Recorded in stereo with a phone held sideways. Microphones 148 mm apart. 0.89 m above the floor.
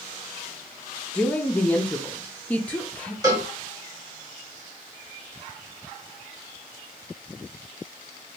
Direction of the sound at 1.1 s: 10° left (ahead or behind).